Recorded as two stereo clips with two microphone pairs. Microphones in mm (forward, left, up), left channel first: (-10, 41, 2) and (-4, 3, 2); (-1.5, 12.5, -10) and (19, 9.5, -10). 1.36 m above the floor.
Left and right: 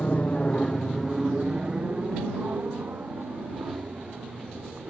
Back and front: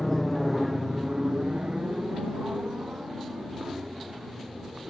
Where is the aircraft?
100° left; by 4.9 s 45° right.